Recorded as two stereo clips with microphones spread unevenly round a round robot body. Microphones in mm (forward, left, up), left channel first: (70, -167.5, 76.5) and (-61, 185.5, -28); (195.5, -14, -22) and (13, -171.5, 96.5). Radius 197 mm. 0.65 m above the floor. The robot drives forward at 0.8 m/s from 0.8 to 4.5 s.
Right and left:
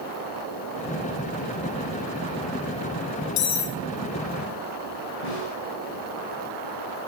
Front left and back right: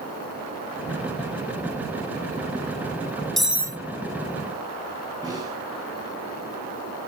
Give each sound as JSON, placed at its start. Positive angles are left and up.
{"t": 3.4, "sound": "cutlery clinking", "azimuth_deg": -40, "distance_m": 1.0}
{"t": 5.2, "sound": "a snare drum", "azimuth_deg": -60, "distance_m": 7.0}